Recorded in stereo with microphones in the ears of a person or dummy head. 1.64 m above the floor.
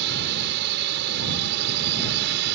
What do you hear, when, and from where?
0.0 s a drone: 65° right (ahead or behind)